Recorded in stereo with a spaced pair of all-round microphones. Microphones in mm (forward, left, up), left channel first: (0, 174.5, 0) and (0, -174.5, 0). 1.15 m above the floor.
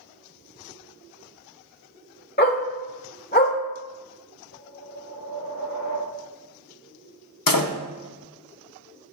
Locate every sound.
2.4 s a dog barking: 30° left (ahead or behind), 1.3 m
4.5 s a whoosh: 70° left (ahead or behind), 2.5 m
7.5 s a door slam: 70° left (ahead or behind), 0.6 m